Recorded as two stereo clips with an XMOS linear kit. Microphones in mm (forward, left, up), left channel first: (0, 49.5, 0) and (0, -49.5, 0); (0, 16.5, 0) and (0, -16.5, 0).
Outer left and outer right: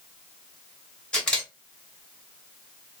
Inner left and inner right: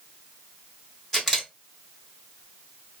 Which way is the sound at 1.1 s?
10° left (ahead or behind).